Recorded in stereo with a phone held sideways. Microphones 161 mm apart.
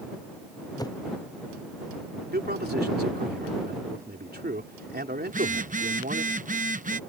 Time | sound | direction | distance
0.8 | a whoosh | 25° left (ahead or behind) | ?
2.3 | a man speaking | 90° right | ?
5.3 | a phone buzzing | 55° right (ahead or behind) | ?